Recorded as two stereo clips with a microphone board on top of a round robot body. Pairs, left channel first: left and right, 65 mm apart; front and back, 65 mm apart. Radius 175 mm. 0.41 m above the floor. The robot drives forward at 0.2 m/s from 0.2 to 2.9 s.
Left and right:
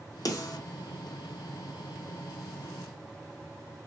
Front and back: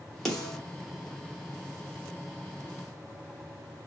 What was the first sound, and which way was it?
A snare drum, 90° left.